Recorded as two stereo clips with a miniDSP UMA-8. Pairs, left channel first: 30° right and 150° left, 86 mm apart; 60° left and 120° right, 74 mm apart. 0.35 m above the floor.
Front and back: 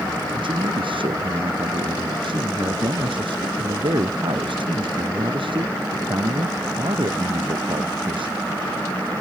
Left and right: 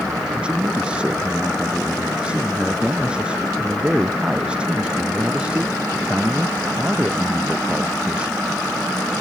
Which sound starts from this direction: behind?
A man speaking, at 0.3 s.